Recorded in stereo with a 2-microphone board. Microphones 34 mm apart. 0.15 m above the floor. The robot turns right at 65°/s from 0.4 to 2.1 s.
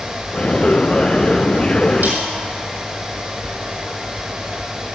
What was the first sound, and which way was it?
A snare drum, 70° right (ahead or behind).